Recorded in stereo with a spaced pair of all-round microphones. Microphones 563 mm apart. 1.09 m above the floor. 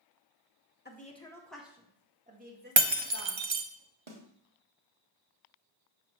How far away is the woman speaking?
About 1.1 m.